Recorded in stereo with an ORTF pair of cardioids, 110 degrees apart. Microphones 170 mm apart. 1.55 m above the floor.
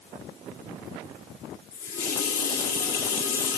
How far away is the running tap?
About 2 m.